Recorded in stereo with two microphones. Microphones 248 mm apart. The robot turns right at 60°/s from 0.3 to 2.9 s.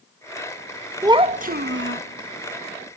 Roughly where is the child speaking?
Behind.